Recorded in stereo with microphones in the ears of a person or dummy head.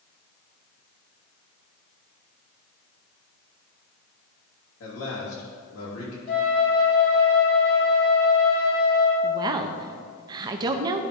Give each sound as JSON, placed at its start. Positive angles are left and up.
{"t": 4.8, "sound": "a man speaking", "side_deg": 70, "distance_m": 2.5}
{"t": 6.3, "sound": "a flute", "side_deg": 55, "distance_m": 1.8}
{"t": 9.2, "sound": "a woman speaking", "side_deg": -25, "distance_m": 0.6}